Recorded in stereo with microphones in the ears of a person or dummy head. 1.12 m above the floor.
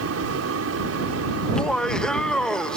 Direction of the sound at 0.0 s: 80° right.